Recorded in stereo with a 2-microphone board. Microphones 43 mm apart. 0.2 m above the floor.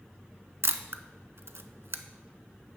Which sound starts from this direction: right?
A camera shutter, at 0.6 s.